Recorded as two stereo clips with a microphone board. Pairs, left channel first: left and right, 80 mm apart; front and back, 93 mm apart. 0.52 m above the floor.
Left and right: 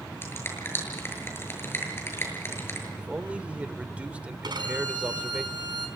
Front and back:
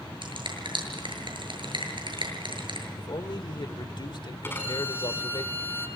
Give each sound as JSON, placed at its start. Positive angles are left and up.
{"t": 0.2, "sound": "a finger snap", "azimuth_deg": 150, "distance_m": 7.5}
{"t": 3.0, "sound": "a man speaking", "azimuth_deg": -20, "distance_m": 1.3}
{"t": 4.4, "sound": "a violin", "azimuth_deg": -65, "distance_m": 4.5}